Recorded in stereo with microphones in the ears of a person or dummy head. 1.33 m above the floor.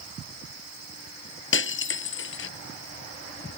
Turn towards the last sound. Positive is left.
turn(degrees=75)  # may be behind; listen again after turning